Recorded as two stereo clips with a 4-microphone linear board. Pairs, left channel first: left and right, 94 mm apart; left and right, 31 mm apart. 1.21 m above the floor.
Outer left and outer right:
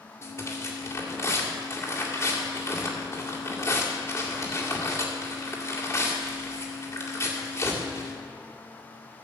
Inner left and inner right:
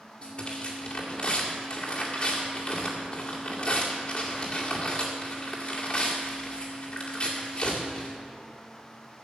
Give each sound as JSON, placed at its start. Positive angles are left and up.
{"t": 0.2, "sound": "tearing paper", "side_deg": 35, "distance_m": 2.0}